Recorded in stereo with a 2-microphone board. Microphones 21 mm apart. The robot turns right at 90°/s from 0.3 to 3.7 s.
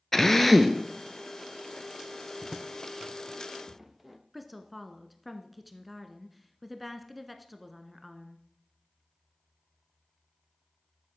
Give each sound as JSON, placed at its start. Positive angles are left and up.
{"t": 0.1, "sound": "a drill", "azimuth_deg": 160, "distance_m": 1.0}
{"t": 2.4, "sound": "footsteps", "side_deg": 5, "distance_m": 0.7}
{"t": 4.3, "sound": "a woman speaking", "side_deg": -5, "distance_m": 1.2}